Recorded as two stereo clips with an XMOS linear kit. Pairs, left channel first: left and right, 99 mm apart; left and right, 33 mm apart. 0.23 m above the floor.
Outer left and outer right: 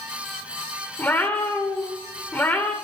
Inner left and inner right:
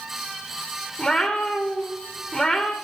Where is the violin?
No violin in this recording.